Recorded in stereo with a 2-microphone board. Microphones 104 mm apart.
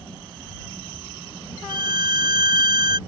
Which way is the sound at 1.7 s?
50° right (ahead or behind).